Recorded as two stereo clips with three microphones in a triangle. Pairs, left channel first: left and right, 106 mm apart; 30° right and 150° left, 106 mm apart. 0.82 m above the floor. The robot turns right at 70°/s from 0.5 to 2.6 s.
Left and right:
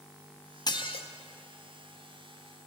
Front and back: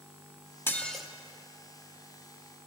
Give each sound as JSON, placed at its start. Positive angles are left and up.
{"t": 0.7, "sound": "dishes clattering", "azimuth_deg": 40, "distance_m": 0.8}